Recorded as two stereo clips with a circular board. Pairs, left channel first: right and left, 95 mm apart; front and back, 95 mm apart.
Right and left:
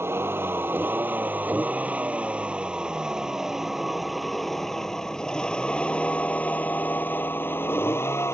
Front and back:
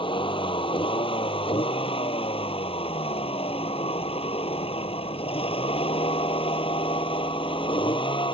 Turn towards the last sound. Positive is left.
turn(degrees=-25)